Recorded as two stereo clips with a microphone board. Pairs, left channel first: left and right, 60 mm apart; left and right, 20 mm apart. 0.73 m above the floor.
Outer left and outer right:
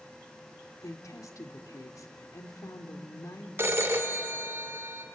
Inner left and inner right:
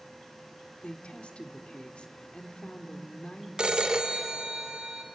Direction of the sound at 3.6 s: 45° right (ahead or behind).